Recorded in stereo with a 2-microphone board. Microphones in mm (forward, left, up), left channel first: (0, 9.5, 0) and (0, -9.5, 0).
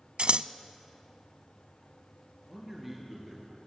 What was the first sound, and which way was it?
Scissors, 65° right (ahead or behind).